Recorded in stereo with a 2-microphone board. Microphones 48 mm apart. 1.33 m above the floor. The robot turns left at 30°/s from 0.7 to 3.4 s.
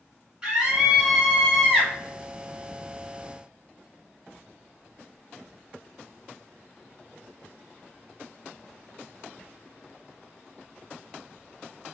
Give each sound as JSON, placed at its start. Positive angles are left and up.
{"t": 0.4, "sound": "a scream", "azimuth_deg": -160, "distance_m": 1.9}